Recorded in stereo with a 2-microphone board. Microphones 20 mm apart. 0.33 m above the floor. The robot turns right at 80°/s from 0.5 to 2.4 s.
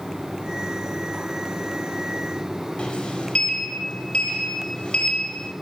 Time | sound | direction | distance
2.8 | a sliding door | 55° left (ahead or behind) | 1.1 m